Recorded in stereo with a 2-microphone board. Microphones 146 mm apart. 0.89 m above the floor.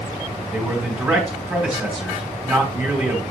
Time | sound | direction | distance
0.5 | a man speaking | 10° right (ahead or behind) | 3.5 m